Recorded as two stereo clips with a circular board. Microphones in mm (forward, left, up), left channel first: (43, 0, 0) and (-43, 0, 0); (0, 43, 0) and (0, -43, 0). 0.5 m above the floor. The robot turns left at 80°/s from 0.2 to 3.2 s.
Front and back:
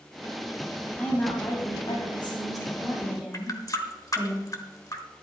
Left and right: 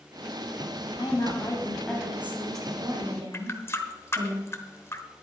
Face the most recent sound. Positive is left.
turn(degrees=35)